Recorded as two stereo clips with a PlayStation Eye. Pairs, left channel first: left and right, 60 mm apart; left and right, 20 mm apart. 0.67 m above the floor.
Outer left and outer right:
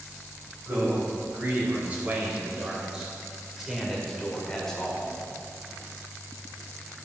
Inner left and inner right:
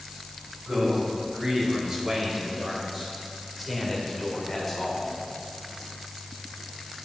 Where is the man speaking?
40° right (ahead or behind), 3 m; by 5.1 s 15° left (ahead or behind), 1.9 m.